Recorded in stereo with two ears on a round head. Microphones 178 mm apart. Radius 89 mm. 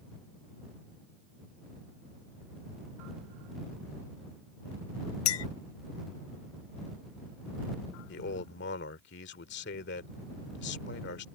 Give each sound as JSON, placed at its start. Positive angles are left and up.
{"t": 5.2, "sound": "a clink", "side_deg": 85}
{"t": 8.1, "sound": "a man speaking", "side_deg": 60}